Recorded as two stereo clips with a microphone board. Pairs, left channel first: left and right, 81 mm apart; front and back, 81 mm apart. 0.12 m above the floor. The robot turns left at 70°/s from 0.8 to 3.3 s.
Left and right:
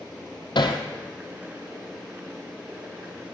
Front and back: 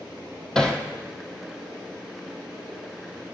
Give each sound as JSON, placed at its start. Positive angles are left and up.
{"t": 0.6, "sound": "hammering", "azimuth_deg": 80, "distance_m": 1.1}